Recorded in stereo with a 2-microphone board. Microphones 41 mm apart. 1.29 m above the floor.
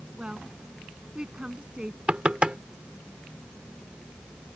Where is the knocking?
30° right (ahead or behind).